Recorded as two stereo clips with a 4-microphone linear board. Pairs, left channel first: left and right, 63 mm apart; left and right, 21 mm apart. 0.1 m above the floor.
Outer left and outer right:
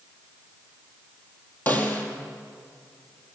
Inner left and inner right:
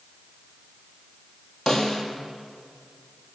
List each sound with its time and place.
1.7 s a snare drum: 25° left (ahead or behind), 3.5 m